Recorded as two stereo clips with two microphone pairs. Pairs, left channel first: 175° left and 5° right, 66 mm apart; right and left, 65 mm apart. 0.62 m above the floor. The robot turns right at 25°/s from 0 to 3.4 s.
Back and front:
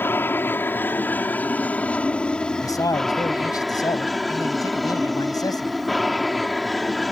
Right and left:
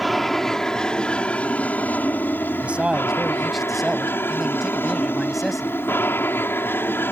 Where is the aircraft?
Straight behind; by 7.1 s 95° right.